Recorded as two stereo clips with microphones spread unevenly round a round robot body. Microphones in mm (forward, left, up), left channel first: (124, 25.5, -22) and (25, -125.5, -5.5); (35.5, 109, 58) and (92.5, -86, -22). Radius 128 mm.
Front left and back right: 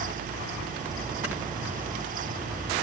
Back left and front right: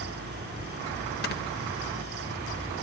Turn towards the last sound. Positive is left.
turn(degrees=155)